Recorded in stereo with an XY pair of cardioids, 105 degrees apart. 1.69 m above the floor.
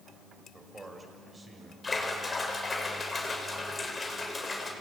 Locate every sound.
0.5 s a man speaking: 25° right, 7 m
1.8 s a splash: 25° left, 6 m